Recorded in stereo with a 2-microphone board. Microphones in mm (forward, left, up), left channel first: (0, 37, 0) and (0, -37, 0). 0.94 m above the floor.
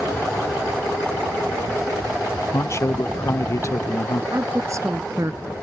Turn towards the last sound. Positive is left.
turn(degrees=-45)  # may be behind; listen again after turning